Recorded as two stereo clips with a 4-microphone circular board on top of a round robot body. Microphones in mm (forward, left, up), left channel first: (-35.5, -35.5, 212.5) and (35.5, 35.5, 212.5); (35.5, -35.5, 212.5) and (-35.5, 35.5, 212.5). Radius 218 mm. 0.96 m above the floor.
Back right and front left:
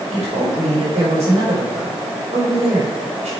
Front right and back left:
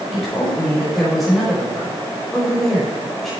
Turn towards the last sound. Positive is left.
turn(degrees=45)